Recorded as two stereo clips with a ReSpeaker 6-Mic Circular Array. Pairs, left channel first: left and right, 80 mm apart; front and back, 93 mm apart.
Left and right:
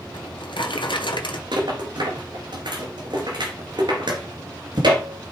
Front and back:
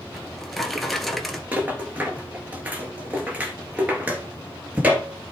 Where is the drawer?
90° left, 1.2 m.